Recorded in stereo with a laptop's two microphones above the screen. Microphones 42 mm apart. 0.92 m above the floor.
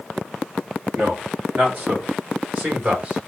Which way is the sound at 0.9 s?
55° right (ahead or behind).